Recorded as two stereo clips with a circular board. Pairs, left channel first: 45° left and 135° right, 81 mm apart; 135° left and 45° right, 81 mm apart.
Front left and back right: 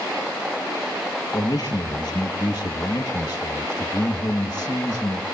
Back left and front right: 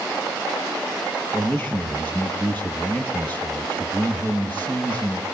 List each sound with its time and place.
1.3 s a man speaking: 70° left, 3.5 m